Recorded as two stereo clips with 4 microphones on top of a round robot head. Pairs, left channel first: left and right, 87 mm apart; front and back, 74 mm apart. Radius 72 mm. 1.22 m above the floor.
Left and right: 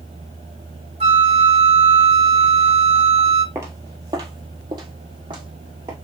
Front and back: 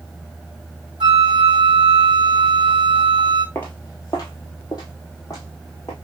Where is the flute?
125° right, 0.8 m.